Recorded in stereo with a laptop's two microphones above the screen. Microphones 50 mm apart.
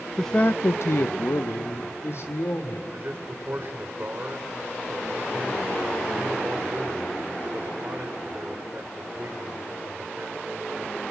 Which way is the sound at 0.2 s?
Centre (ahead or behind).